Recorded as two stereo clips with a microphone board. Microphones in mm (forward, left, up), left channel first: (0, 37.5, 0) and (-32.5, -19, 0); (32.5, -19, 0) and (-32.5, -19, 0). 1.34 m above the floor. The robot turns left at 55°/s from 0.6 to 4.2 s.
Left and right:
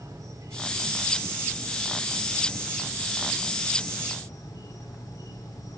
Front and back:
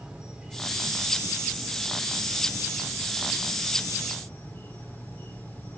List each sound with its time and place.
0.0 s an insect: 105° right, 2.5 m; by 5.8 s 60° left, 2.5 m